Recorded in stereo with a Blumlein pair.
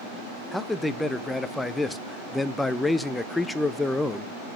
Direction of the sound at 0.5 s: 10° left.